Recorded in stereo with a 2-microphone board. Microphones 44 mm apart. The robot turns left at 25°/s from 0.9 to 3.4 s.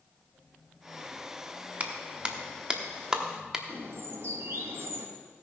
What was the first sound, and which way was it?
A clap, 30° right (ahead or behind).